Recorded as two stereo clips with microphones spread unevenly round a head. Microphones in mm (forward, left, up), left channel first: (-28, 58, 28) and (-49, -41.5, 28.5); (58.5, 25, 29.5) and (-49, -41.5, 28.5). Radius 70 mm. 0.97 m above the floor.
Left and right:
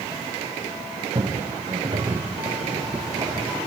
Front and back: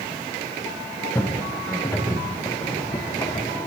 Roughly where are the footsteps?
Ahead right.